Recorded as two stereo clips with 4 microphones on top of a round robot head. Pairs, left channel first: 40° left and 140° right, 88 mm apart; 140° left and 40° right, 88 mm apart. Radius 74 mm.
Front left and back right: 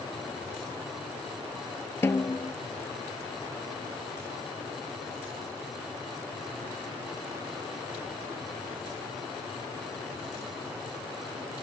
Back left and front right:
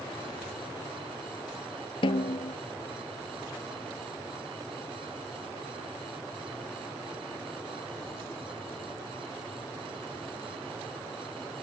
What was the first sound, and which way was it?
A snare drum, 105° left.